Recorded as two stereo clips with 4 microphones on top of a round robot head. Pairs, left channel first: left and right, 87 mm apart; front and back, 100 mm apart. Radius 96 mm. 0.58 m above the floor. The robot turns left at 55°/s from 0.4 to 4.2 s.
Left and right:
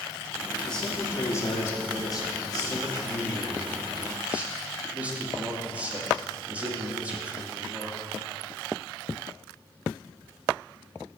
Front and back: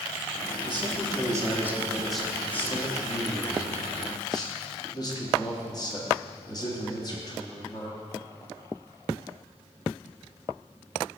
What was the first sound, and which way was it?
A man speaking, 175° left.